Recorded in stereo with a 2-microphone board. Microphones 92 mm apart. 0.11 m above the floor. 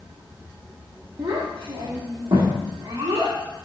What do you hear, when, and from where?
1.2 s a child speaking: 70° right (ahead or behind), 2.5 m; by 3.4 s 80° right, 4.5 m